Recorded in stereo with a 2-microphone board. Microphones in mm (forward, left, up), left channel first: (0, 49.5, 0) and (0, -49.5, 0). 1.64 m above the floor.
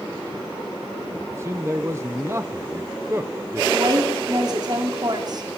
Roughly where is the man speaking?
Right.